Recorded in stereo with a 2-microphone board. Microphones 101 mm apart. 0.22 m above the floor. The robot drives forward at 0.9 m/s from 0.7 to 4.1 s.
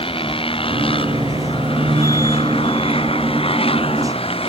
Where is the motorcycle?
65° left (ahead or behind); by 4.5 s 70° left (ahead or behind).